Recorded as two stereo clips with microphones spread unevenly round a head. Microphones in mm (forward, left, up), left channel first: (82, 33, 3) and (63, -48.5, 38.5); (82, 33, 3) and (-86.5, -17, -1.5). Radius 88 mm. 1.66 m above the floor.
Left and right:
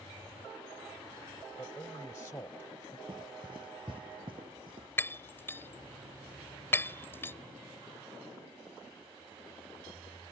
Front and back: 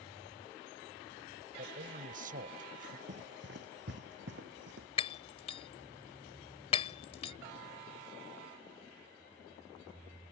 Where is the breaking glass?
5° right.